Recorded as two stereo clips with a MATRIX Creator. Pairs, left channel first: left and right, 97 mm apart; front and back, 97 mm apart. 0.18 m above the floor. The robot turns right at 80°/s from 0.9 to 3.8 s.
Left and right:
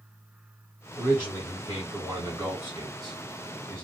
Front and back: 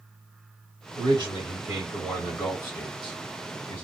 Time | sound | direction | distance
1.0 | a man speaking | 175° right | 1.7 m